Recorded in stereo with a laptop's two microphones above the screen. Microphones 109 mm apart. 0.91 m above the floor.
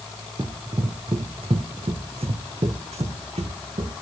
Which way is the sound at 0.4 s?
40° right (ahead or behind).